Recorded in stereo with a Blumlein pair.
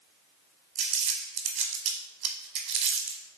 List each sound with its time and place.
0.8 s crumpling: 35° right, 0.7 m